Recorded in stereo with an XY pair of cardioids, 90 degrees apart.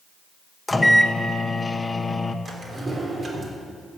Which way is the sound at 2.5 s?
40° right.